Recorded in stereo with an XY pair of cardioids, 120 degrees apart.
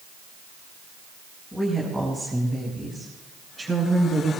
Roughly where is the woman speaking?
Ahead.